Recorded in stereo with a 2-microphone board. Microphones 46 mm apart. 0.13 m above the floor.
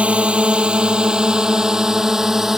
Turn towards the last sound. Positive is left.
turn(degrees=-10)  # may be behind; listen again after turning